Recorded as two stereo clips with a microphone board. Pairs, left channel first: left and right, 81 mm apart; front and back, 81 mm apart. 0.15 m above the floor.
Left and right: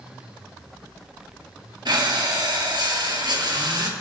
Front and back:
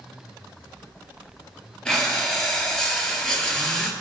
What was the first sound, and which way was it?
Breathing, 80° right.